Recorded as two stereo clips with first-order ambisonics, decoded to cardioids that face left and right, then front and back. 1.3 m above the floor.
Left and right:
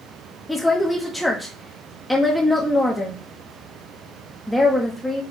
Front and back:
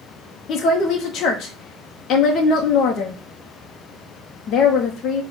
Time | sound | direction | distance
0.5 | a woman speaking | 10° left | 0.5 m